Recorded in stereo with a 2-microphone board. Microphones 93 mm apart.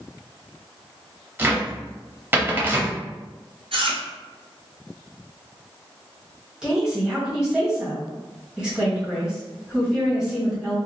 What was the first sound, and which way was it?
A cupboard door, 20° right (ahead or behind).